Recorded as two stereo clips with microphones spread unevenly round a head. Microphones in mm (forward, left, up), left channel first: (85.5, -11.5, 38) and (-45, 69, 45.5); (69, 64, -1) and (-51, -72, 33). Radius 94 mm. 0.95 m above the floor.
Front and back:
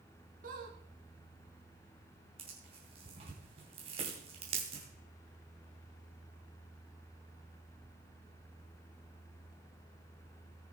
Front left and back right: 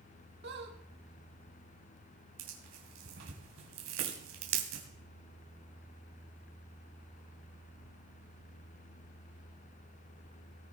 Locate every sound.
0.4 s a squeak: 170° right, 2 m
2.4 s tearing paper: 155° right, 3 m